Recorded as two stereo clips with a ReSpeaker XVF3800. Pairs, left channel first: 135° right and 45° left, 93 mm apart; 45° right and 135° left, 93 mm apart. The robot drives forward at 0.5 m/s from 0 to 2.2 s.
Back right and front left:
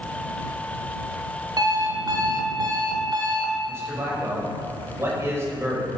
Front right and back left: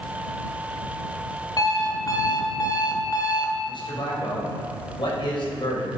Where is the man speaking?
15° right, 4.5 m.